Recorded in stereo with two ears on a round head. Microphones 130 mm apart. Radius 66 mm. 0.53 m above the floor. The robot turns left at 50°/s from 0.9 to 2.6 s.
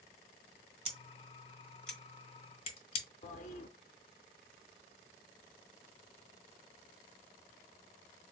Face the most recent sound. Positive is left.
turn(degrees=50)  # may be behind; listen again after turning